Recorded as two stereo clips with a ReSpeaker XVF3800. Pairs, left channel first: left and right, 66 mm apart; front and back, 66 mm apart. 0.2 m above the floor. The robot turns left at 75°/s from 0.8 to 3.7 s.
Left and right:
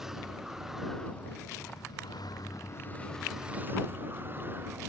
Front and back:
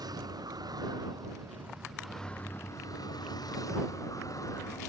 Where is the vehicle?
175° right; by 4.9 s 30° right.